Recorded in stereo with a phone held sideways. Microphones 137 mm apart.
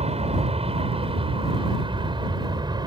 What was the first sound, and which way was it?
An aircraft, 50° right (ahead or behind).